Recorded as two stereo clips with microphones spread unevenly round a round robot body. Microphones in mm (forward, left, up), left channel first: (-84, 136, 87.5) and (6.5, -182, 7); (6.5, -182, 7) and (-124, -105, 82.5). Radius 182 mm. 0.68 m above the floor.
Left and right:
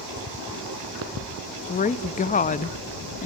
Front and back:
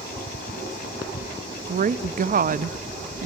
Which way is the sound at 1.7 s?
175° left.